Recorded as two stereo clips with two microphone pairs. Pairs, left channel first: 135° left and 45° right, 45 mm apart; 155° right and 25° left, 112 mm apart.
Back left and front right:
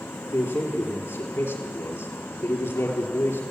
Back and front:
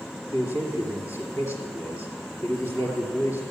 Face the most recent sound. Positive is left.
turn(degrees=140)